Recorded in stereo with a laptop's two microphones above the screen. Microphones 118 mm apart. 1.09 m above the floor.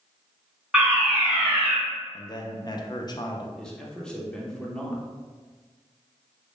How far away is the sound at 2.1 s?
About 0.6 m.